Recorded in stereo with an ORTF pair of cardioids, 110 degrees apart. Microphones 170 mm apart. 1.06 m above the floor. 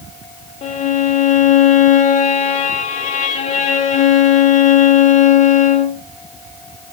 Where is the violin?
45° left, 1.5 m.